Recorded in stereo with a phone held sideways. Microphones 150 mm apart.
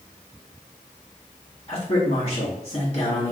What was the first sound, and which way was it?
A man speaking, 40° left (ahead or behind).